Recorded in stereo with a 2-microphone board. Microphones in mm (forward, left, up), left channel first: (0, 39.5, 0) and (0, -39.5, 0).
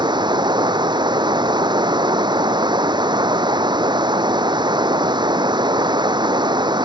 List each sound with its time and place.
0.0 s running water: 75° right (ahead or behind)